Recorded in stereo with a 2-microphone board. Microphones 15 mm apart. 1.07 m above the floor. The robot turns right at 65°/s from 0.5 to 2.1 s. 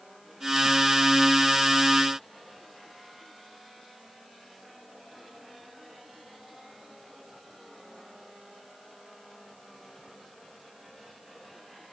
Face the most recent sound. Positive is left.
No sound to turn to.